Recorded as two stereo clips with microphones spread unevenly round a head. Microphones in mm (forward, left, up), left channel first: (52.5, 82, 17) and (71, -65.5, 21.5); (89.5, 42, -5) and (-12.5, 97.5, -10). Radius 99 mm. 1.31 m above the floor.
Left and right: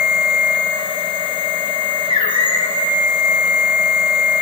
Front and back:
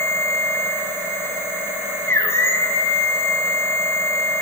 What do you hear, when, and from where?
0.0 s a machine running: 40° left, 1.0 m